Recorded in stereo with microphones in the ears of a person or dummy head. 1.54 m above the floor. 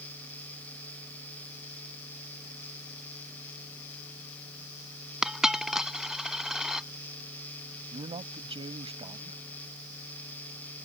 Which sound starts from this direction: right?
A man speaking, at 7.9 s.